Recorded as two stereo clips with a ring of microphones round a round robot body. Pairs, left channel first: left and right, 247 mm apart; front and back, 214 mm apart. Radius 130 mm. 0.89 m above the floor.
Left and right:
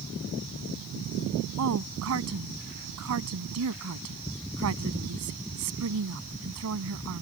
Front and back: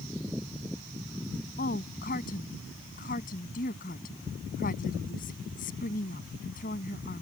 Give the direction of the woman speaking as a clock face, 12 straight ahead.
2 o'clock.